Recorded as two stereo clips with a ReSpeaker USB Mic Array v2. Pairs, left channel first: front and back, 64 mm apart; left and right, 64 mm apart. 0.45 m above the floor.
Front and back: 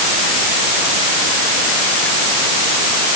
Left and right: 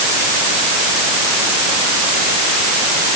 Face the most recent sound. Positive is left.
No sound to turn to.